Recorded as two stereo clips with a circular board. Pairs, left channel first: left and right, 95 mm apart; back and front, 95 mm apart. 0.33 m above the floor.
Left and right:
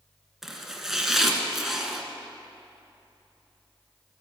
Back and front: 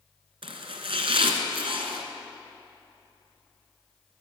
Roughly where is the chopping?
Ahead.